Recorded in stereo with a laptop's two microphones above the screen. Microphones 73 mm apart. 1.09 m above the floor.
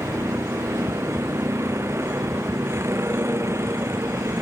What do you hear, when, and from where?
0.0 s a vehicle: 35° right (ahead or behind)